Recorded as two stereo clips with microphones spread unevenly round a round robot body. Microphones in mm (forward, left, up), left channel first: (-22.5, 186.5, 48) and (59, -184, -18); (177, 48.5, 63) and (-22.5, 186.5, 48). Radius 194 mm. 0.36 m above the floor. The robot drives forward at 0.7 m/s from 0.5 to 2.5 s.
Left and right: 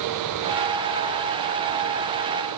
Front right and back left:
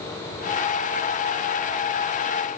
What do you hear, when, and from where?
Only background noise.